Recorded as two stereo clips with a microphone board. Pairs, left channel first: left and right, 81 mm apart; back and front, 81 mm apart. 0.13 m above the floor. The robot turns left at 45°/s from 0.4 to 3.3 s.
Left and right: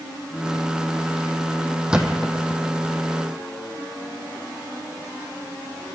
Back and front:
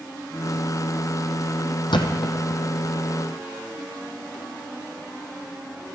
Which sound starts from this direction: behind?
A thud, at 1.9 s.